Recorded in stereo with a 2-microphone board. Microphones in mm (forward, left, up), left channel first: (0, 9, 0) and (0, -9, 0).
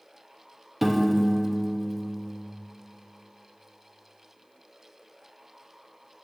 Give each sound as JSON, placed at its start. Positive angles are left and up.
{"t": 0.8, "sound": "a piano", "side_deg": -5, "distance_m": 0.6}